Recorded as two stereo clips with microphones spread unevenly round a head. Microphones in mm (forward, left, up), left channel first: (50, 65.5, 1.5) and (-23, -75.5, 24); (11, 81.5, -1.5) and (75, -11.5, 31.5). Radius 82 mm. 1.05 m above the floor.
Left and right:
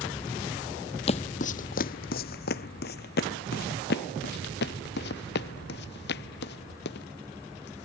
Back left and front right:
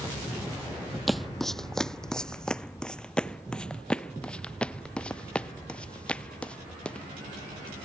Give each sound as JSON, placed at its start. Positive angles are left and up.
{"t": 1.1, "sound": "footsteps", "azimuth_deg": 15}